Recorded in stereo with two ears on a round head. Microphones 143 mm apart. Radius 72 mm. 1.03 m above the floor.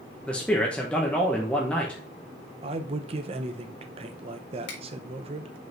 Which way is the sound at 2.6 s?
35° right (ahead or behind).